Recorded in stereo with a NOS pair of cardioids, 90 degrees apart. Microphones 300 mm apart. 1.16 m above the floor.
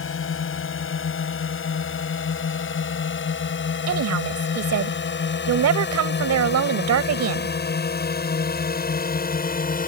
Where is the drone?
45° left; by 9.9 s 30° left.